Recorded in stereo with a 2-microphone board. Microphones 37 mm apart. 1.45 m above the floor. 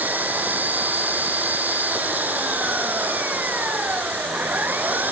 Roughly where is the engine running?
Right.